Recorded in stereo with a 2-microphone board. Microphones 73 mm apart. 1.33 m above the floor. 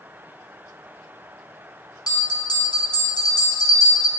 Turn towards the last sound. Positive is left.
turn(degrees=65)  # may be behind; listen again after turning